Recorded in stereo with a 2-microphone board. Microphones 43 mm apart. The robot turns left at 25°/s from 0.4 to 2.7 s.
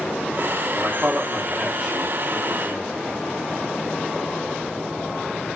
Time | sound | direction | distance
0.7 | a man speaking | 130° right | 1.2 m